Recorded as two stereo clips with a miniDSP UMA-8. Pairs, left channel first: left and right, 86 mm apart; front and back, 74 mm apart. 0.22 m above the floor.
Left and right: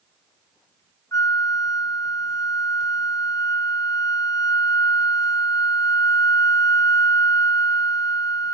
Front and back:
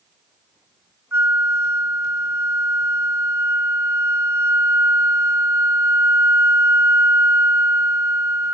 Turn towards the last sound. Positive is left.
turn(degrees=130)